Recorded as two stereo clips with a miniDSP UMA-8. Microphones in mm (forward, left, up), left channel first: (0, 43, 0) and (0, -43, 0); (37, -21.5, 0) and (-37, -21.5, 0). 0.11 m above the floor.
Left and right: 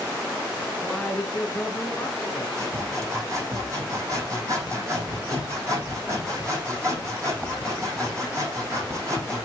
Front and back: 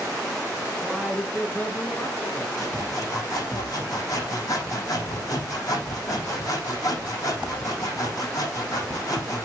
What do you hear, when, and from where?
0.8 s a man speaking: 170° left, 1.7 m; by 2.5 s 30° left, 2 m
2.6 s sawing: 40° right, 5 m